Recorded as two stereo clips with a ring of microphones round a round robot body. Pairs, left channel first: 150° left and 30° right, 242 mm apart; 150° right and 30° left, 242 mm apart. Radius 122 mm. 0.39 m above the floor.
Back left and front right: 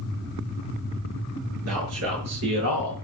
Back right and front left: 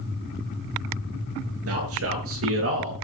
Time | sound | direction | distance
1.7 | a man speaking | straight ahead | 7 m